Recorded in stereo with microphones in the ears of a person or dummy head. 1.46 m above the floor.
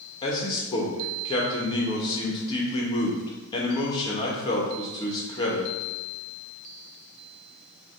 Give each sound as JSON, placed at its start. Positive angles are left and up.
{"t": 0.2, "sound": "a man speaking", "side_deg": 25, "distance_m": 1.5}